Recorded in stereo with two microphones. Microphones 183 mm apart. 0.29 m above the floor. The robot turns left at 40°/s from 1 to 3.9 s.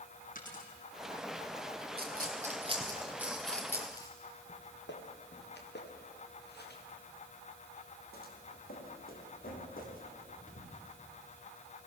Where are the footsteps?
80° left, 2.5 m; by 11.0 s 50° left (ahead or behind), 6 m.